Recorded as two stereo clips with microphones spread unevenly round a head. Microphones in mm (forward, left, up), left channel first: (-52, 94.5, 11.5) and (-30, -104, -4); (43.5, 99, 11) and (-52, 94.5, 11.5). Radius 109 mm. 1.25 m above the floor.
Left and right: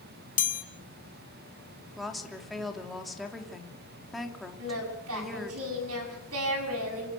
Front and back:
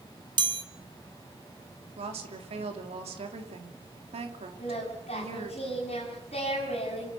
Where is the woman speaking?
175° right, 3 m.